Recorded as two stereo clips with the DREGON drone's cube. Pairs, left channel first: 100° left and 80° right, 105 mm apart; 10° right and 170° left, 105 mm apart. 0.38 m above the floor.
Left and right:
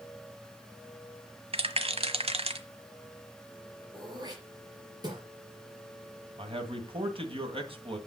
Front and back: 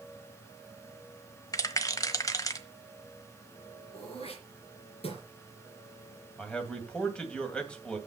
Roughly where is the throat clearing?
Ahead right.